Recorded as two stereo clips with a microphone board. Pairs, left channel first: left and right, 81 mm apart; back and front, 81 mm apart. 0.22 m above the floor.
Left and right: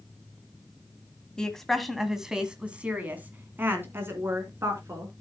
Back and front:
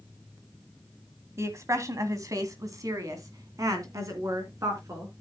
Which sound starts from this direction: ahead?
A woman speaking, at 1.4 s.